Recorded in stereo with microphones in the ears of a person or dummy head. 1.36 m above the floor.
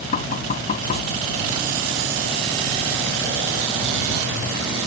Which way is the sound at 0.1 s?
40° left (ahead or behind).